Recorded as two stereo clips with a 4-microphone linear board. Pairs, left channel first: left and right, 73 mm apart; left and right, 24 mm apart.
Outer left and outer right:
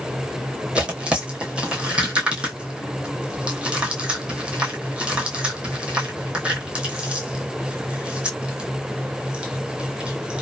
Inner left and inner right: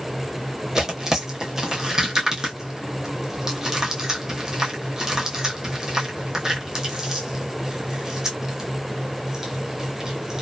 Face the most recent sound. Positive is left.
turn(degrees=-15)  # may be behind; listen again after turning